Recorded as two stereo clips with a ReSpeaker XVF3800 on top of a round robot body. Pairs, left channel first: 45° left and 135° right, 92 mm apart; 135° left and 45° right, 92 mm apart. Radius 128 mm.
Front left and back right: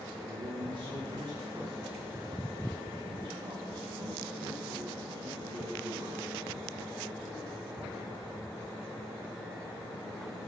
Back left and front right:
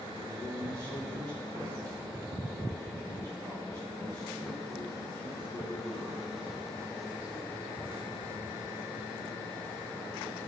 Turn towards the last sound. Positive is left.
turn(degrees=-95)